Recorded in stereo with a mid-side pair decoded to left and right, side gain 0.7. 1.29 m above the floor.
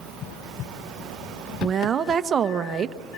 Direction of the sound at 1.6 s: 30° right.